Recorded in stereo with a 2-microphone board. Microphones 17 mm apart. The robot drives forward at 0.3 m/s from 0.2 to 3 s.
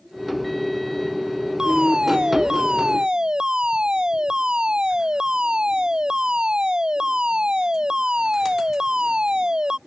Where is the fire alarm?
60° right (ahead or behind).